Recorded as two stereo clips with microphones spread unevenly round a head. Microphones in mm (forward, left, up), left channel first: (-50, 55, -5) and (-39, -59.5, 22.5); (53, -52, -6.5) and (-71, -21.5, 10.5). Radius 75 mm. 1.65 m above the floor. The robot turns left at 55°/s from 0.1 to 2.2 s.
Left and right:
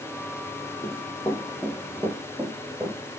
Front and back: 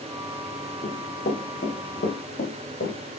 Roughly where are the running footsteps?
Ahead left.